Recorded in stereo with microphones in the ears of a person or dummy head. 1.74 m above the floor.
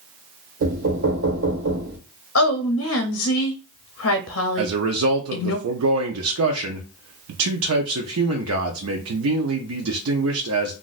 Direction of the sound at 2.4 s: 75° left (ahead or behind).